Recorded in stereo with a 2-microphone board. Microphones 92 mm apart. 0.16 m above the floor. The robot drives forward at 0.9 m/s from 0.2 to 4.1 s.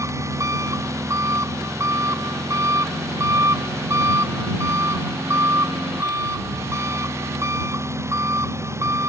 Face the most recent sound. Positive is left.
turn(degrees=-30)  # may be behind; listen again after turning